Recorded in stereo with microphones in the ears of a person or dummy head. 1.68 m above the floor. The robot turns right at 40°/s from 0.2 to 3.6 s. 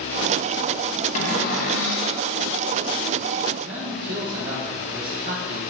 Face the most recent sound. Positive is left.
turn(degrees=-50)  # may be behind; listen again after turning